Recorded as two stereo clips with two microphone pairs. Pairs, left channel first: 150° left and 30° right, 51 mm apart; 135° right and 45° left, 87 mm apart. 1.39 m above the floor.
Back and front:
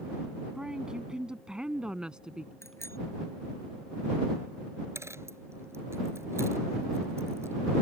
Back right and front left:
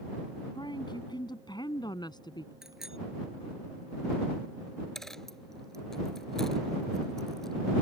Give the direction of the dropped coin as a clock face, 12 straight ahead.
2 o'clock.